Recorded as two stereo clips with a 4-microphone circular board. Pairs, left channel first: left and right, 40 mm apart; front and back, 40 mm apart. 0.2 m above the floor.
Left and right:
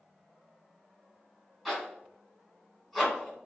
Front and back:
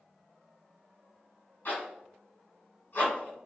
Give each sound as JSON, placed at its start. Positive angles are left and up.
{"t": 1.6, "sound": "a zipper", "azimuth_deg": 0, "distance_m": 1.6}